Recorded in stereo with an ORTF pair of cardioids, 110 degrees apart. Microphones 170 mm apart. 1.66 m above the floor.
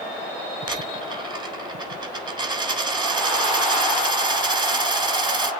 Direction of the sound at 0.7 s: 25° right.